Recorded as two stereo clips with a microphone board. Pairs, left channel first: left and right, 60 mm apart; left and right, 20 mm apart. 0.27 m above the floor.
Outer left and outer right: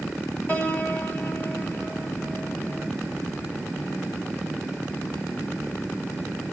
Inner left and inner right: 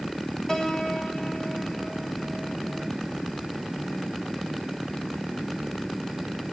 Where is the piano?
25° left (ahead or behind), 1.8 m.